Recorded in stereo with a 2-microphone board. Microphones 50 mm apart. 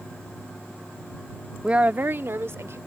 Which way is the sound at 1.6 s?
20° right (ahead or behind).